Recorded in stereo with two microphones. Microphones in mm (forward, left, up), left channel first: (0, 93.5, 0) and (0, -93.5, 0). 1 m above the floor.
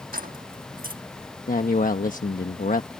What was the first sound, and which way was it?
Keys jangling, 50° right (ahead or behind).